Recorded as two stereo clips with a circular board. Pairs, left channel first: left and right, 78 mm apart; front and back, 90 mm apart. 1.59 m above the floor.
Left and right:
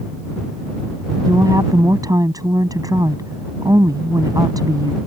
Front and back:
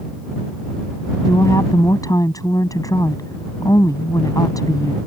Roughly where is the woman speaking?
Ahead right.